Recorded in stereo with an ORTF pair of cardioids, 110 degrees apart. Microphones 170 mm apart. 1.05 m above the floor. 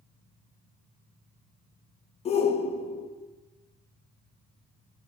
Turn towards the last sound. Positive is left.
turn(degrees=40)